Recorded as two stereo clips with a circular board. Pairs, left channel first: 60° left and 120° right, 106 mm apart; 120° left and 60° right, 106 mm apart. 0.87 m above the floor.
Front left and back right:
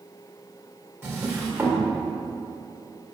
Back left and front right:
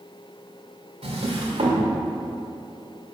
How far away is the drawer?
About 1.4 m.